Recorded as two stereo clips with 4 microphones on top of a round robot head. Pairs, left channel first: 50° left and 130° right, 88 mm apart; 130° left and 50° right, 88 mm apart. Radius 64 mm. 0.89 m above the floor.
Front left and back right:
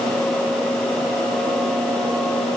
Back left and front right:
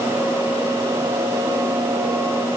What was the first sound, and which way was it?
Only background noise.